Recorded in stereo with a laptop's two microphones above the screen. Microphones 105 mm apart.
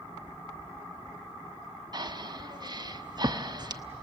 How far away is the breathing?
About 0.7 m.